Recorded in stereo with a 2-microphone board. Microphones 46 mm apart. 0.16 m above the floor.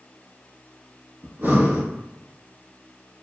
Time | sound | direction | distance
1.2 | breathing | 50° right (ahead or behind) | 1.1 m